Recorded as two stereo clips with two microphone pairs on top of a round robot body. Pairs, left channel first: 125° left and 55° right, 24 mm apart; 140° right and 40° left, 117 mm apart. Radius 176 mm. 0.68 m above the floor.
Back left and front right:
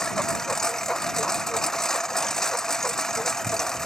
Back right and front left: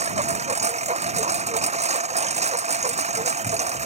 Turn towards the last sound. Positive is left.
turn(degrees=55)